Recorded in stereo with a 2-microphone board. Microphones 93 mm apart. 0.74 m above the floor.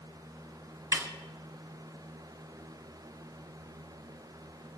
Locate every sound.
0.9 s a snare drum: 30° right (ahead or behind), 1.2 m